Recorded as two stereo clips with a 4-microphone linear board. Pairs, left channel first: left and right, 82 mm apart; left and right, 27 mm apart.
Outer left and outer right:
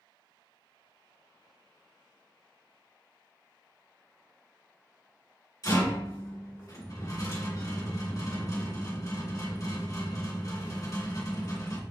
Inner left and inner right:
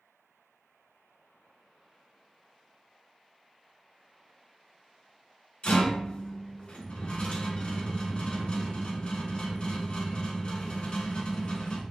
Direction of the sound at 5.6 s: 50° left (ahead or behind).